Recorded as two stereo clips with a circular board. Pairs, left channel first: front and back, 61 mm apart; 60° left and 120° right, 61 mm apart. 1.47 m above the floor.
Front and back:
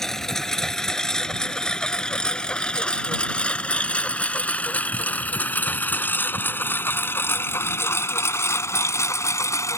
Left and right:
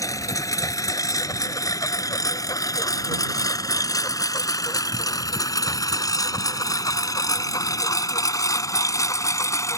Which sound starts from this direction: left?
A lawn mower, at 0.0 s.